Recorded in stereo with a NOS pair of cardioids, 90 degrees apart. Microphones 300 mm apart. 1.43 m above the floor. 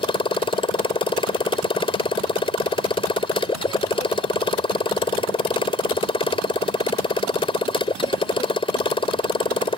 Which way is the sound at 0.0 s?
15° left.